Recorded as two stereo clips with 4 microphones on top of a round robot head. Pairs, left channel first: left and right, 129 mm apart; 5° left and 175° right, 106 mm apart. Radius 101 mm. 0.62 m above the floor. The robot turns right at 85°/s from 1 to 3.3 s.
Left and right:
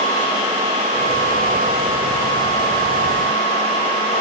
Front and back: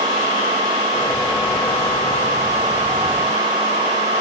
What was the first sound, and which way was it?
Only background noise.